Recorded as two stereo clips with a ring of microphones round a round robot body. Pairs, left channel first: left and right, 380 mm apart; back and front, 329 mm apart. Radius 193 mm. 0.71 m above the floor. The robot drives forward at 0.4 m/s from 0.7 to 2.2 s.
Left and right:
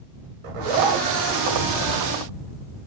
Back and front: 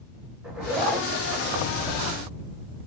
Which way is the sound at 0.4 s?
85° right.